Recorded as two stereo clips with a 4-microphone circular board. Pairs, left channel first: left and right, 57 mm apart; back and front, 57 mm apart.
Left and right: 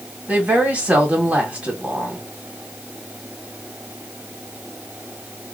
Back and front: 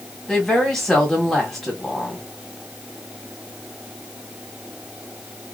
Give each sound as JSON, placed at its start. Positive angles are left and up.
{"t": 0.3, "sound": "a woman speaking", "azimuth_deg": -100, "distance_m": 1.7}